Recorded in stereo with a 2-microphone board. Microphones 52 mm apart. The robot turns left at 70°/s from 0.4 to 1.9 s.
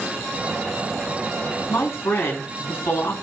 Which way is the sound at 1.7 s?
55° left (ahead or behind).